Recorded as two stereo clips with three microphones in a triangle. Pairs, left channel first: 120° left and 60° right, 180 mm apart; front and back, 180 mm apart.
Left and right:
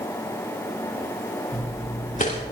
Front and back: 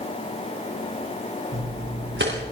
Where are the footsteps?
165° left, 3 m.